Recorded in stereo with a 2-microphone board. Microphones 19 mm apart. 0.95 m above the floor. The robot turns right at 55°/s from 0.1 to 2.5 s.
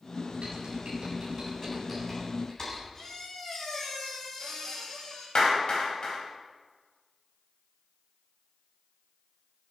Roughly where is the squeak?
Left.